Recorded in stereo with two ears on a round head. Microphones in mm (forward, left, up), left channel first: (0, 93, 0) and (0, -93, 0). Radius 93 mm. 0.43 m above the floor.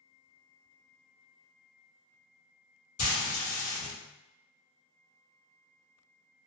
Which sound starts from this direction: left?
Frying, at 3.0 s.